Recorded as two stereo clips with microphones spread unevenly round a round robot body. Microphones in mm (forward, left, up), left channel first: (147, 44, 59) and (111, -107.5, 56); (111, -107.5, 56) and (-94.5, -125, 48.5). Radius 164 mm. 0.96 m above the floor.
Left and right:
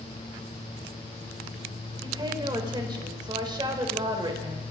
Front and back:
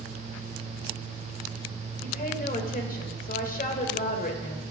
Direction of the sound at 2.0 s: 40° right.